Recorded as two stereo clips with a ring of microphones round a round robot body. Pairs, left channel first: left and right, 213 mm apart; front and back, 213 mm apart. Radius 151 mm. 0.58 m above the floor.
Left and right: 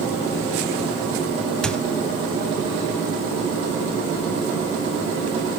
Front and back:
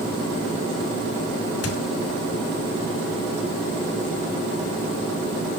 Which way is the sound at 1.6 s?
5° left.